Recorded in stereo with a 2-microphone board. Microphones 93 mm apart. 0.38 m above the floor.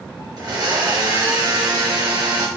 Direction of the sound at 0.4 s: 45° right (ahead or behind).